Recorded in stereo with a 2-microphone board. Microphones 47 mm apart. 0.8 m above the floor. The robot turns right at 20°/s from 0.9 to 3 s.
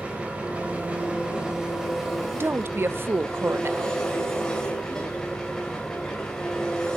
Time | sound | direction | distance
0.0 | an engine running | 30° right | 4 m
2.3 | a woman speaking | 55° right (ahead or behind) | 0.6 m